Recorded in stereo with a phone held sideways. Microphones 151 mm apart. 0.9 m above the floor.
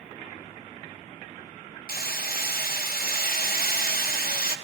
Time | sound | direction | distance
1.9 | hammering | 85° left | 0.7 m